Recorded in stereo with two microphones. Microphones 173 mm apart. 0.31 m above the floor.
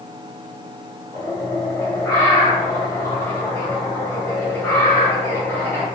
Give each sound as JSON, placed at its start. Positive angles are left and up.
{"t": 1.1, "sound": "a bird", "side_deg": 15, "distance_m": 1.7}